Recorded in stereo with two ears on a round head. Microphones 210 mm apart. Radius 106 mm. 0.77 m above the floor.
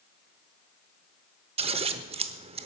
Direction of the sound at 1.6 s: 25° right (ahead or behind).